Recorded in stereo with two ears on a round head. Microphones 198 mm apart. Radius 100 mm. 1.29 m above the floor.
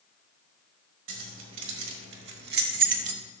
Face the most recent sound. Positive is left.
turn(degrees=-30)  # may be behind; listen again after turning